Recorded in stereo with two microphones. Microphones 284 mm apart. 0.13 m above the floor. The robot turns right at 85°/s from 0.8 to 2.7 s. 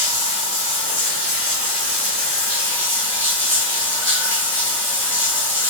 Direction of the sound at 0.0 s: 155° right.